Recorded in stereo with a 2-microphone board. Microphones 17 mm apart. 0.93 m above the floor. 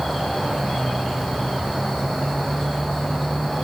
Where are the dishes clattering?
I don't hear dishes clattering.